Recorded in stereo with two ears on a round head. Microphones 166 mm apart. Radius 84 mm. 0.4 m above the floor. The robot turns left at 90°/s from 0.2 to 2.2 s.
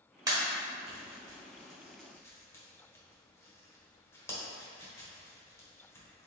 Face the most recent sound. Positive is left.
turn(degrees=15)  # may be behind; listen again after turning